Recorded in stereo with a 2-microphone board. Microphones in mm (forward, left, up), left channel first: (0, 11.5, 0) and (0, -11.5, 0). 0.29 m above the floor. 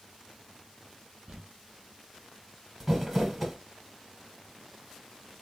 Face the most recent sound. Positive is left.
turn(degrees=-10)  # may be behind; listen again after turning